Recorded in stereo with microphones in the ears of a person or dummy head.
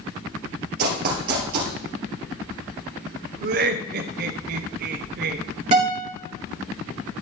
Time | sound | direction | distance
0.8 | running footsteps | 50° right (ahead or behind) | 2.5 m
3.4 | laughter | 55° right (ahead or behind) | 0.8 m
5.7 | a guitar | 40° right (ahead or behind) | 4 m